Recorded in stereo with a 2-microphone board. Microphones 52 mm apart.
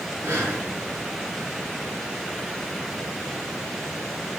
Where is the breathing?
70° right (ahead or behind), 5 m.